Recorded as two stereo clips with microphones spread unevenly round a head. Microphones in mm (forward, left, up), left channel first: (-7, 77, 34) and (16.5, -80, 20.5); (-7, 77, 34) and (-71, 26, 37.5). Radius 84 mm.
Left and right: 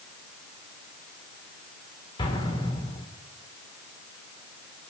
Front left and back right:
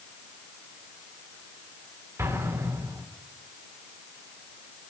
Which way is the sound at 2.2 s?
160° left.